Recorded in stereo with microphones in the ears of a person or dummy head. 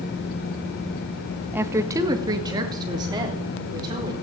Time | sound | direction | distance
1.5 | a woman speaking | 5° right (ahead or behind) | 0.8 m